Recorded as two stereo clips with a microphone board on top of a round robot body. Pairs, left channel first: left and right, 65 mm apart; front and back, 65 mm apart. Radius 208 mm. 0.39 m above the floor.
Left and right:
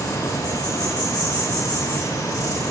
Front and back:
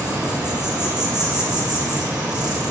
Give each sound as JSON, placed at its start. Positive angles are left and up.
{"t": 0.0, "sound": "an insect", "azimuth_deg": 105, "distance_m": 8.5}